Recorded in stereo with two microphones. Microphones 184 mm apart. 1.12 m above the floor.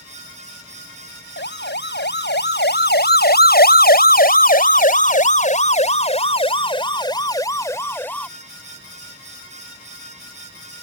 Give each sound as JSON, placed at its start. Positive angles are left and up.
{"t": 1.4, "sound": "a siren", "side_deg": 75}